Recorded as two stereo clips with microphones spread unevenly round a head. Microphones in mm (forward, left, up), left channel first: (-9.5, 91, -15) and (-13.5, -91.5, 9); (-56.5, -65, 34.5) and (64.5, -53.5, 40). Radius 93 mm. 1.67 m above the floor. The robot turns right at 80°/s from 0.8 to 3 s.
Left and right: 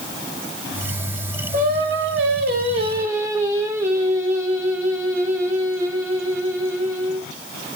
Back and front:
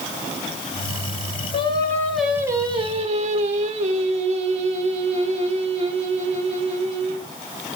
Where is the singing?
135° right, 3 m; by 7.3 s 20° right, 3 m.